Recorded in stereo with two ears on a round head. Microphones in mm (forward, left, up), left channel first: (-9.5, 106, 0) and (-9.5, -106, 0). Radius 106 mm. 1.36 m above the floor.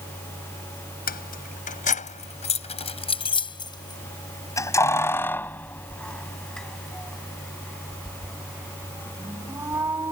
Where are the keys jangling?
40° left (ahead or behind); by 10.1 s 10° right (ahead or behind).